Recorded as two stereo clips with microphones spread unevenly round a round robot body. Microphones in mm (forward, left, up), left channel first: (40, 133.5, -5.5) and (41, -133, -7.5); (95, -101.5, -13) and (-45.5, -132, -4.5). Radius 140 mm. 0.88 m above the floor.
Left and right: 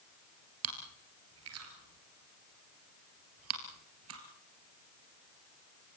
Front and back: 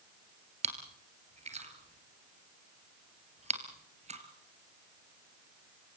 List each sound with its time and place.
0.6 s chewing: 130° right, 3 m